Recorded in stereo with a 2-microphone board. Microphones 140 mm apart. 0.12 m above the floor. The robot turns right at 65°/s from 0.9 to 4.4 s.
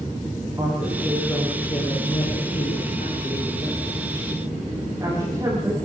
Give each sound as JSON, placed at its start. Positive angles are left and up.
{"t": 0.6, "sound": "a woman speaking", "side_deg": -25, "distance_m": 9.0}